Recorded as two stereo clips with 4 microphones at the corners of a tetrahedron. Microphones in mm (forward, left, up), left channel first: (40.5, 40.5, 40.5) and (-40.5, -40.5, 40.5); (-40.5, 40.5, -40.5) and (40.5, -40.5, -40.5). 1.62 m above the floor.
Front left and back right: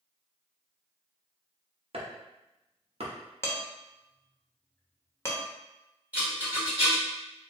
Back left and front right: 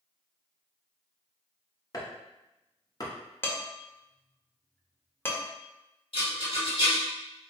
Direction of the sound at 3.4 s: 85° left.